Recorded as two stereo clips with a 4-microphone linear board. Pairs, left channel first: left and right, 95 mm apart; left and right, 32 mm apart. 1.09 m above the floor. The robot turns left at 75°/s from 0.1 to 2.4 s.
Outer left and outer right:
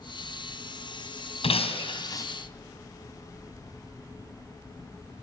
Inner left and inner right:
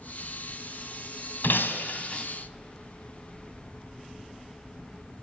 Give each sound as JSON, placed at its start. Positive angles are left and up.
{"t": 1.4, "sound": "breaking glass", "azimuth_deg": 95, "distance_m": 3.0}